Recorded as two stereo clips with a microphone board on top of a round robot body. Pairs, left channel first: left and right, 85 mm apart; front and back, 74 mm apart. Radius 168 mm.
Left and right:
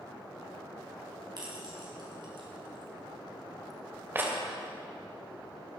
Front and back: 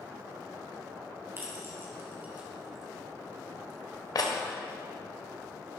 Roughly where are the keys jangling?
Behind right.